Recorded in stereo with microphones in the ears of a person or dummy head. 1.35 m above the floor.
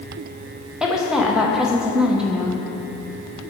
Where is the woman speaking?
Centre (ahead or behind), 0.9 m.